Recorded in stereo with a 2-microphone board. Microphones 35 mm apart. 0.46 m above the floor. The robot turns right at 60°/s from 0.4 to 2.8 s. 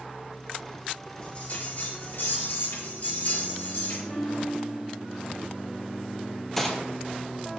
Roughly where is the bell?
Ahead left.